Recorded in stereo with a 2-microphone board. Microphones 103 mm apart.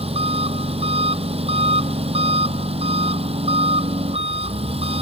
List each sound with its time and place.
0.0 s an engine running: 75° right (ahead or behind)